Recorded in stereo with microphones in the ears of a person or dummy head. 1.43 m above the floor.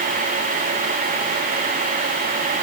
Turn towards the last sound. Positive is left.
No sound to turn to.